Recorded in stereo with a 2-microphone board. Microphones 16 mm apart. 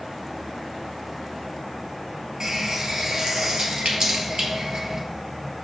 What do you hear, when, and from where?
2.4 s a running tap: 40° right (ahead or behind), 1.6 m